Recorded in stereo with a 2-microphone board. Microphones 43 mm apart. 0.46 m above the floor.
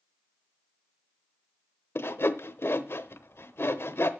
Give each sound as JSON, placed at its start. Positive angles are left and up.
{"t": 1.9, "sound": "sawing", "side_deg": 65, "distance_m": 0.9}